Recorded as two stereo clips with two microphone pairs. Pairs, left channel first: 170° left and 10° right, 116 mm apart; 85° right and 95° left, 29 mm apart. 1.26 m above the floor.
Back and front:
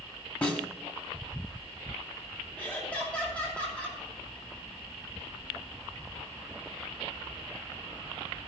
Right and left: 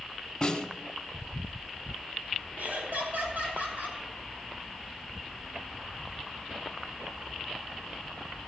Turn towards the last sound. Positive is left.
turn(degrees=95)